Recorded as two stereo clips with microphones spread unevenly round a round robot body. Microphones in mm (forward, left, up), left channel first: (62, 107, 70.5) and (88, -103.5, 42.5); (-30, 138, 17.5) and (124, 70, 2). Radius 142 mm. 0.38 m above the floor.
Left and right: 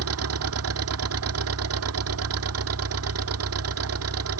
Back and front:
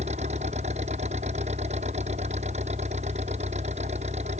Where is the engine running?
95° right.